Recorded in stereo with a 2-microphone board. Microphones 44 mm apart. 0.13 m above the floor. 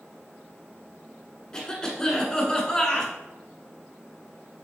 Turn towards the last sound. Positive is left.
turn(degrees=15)  # may be behind; listen again after turning